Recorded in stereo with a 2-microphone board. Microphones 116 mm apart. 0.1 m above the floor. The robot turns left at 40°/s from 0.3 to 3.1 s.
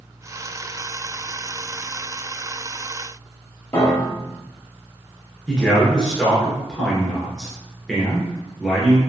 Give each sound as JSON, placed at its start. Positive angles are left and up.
{"t": 3.7, "sound": "a piano", "side_deg": 15, "distance_m": 1.1}
{"t": 5.5, "sound": "a man speaking", "side_deg": 0, "distance_m": 1.1}